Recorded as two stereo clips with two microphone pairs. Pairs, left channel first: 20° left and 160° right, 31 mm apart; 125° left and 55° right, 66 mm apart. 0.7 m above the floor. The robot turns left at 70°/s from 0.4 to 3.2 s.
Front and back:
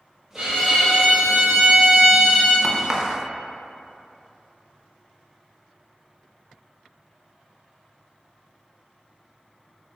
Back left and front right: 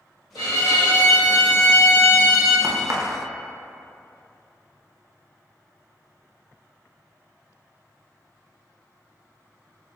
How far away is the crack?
About 0.7 m.